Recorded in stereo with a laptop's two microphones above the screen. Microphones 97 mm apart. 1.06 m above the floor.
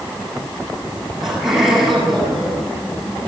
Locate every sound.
1.2 s laughter: 5° right (ahead or behind), 8 m